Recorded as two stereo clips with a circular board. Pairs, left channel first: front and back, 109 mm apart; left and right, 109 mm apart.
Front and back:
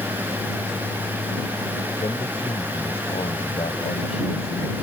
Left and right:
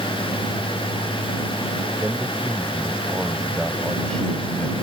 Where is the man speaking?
25° right; by 4.7 s 15° left.